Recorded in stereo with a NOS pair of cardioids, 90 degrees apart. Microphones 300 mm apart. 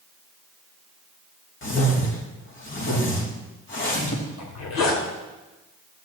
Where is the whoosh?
40° left, 3 m.